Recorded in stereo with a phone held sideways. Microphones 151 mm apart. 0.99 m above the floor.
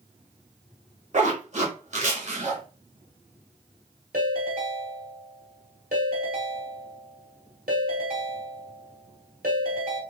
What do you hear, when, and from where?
1.1 s a zipper: 50° right (ahead or behind), 1.1 m
4.1 s a ringtone: 75° right (ahead or behind), 1.7 m